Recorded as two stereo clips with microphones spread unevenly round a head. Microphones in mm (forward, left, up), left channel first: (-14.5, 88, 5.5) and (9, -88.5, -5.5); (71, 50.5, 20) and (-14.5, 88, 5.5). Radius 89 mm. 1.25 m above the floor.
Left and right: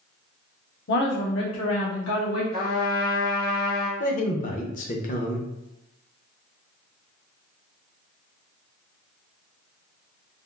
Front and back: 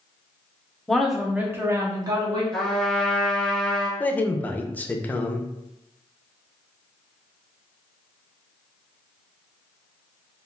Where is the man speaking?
50° left, 0.6 m.